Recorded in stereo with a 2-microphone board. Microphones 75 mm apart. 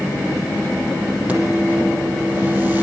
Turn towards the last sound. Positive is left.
turn(degrees=-25)  # may be behind; listen again after turning